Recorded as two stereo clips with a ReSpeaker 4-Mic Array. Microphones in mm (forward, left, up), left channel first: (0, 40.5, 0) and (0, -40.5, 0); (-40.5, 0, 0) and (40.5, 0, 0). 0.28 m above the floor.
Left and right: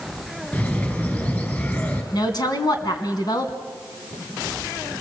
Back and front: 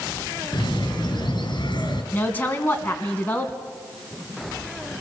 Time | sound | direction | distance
0.5 | a bird | 155° left | 4.5 m
2.1 | a woman speaking | 115° left | 2.5 m